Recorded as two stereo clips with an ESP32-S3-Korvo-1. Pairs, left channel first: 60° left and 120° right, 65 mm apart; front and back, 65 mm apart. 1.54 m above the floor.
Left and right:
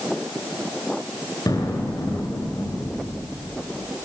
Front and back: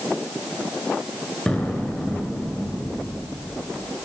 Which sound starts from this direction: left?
An explosion, at 1.5 s.